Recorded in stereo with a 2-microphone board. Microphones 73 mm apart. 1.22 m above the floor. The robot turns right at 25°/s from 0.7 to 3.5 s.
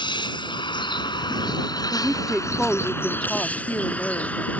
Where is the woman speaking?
15° right; by 4.5 s 25° left.